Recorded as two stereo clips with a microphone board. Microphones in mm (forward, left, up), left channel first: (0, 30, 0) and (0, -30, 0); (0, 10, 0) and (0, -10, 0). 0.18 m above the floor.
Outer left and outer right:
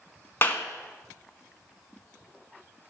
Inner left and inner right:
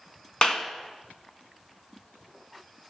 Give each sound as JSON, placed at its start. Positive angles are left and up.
{"t": 0.4, "sound": "a clap", "side_deg": 35, "distance_m": 1.2}